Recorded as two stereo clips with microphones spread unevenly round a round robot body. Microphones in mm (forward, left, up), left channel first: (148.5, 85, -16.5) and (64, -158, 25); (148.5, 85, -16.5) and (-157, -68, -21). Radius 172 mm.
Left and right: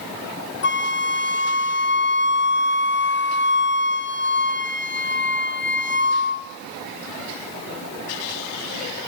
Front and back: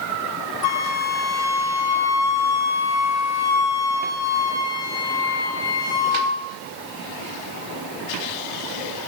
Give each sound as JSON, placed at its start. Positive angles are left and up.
{"t": 0.6, "sound": "a flute", "azimuth_deg": 35, "distance_m": 2.5}